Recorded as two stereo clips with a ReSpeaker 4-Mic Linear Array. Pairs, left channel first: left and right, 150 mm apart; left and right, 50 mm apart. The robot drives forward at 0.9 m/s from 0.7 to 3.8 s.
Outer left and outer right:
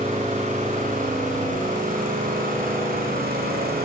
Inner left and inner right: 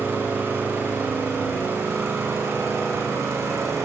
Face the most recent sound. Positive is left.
turn(degrees=-70)  # may be behind; listen again after turning